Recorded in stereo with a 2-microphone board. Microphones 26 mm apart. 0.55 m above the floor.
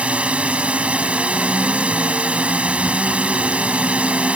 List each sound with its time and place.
0.0 s a drone: 65° right (ahead or behind)